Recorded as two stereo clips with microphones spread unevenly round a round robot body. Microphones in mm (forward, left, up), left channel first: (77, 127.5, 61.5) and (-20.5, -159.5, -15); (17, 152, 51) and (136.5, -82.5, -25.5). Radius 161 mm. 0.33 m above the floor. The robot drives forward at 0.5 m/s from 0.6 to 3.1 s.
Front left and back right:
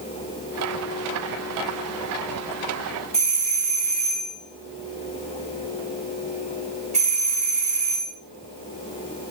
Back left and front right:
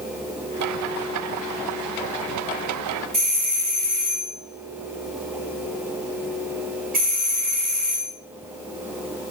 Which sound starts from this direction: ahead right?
A doorbell, at 3.1 s.